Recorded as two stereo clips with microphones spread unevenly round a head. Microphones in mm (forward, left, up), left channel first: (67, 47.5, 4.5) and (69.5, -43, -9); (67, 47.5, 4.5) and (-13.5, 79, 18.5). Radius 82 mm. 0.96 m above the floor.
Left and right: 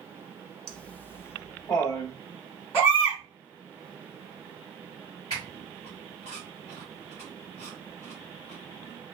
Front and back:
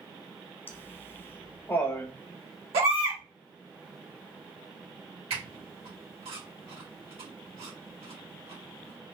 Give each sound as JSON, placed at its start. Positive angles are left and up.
{"t": 0.7, "sound": "laughter", "azimuth_deg": 5, "distance_m": 0.8}
{"t": 2.7, "sound": "a baby crying", "azimuth_deg": 175, "distance_m": 1.7}
{"t": 5.3, "sound": "a squeak", "azimuth_deg": 160, "distance_m": 1.7}